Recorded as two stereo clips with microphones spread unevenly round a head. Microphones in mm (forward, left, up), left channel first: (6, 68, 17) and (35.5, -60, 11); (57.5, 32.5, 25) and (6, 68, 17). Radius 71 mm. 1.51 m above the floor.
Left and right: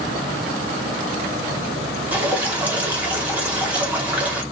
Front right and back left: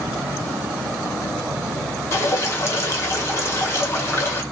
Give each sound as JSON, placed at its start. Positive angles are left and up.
{"t": 2.1, "sound": "dripping", "azimuth_deg": 0, "distance_m": 1.0}